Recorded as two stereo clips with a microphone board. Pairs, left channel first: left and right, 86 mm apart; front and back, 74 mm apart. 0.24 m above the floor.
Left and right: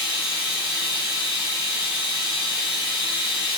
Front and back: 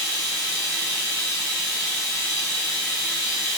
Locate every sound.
0.0 s running water: 10° right, 2.0 m